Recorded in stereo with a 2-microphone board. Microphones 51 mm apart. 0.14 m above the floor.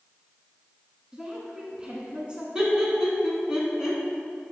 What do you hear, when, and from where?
1.1 s a woman speaking: 20° right (ahead or behind), 1.1 m
2.5 s laughter: 15° right (ahead or behind), 1.1 m